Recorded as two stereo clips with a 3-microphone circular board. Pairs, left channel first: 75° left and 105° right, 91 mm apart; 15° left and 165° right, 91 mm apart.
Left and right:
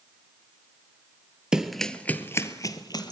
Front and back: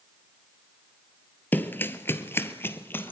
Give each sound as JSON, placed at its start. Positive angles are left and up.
{"t": 1.5, "sound": "running footsteps", "azimuth_deg": -30, "distance_m": 1.2}